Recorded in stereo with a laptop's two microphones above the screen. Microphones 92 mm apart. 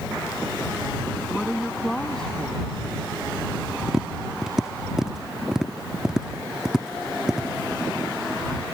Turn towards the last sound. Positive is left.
turn(degrees=-5)  # may be behind; listen again after turning